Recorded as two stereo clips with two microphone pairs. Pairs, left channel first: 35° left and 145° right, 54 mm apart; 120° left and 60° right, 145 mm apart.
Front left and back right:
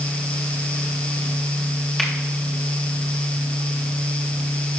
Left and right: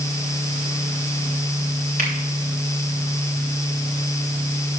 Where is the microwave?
No microwave in this recording.